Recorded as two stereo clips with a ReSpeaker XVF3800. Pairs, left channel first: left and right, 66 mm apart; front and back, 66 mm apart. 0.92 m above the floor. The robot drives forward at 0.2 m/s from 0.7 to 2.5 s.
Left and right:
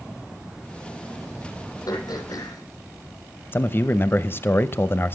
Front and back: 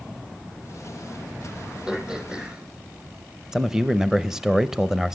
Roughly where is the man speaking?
Left.